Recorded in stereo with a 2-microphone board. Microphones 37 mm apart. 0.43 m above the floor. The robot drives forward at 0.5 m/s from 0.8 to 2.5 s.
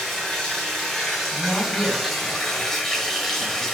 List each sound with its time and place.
0.0 s running water: 5° left (ahead or behind), 2.5 m
1.3 s a man speaking: 10° left (ahead or behind), 4.5 m